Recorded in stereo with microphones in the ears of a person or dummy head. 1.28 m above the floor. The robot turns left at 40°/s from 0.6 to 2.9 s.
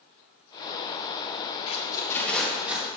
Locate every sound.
1.7 s tape being pulled: 35° left (ahead or behind), 1.1 m; by 2.9 s 10° right (ahead or behind), 1.1 m